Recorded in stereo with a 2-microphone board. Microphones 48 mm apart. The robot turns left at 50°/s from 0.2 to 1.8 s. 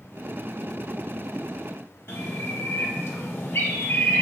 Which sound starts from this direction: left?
A bird, at 2.1 s.